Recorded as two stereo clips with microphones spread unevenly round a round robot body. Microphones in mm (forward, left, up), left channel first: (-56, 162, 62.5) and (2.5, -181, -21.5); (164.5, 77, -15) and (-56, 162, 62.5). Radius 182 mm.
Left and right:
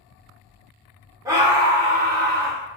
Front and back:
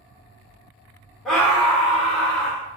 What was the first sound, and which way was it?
A scream, 55° right.